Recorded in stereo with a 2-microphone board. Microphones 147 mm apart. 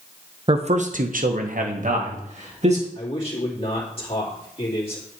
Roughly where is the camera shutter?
I don't hear a camera shutter.